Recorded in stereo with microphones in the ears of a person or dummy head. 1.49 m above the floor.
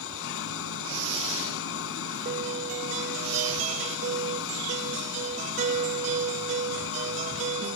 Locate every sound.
0.0 s an engine running: 80° left
2.2 s a guitar: 35° right (ahead or behind)